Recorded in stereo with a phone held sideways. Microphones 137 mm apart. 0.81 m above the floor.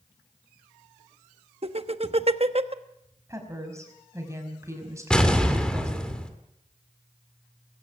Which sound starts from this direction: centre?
An explosion, at 5.1 s.